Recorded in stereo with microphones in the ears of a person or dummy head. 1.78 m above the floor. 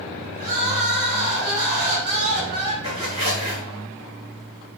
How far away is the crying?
About 0.8 m.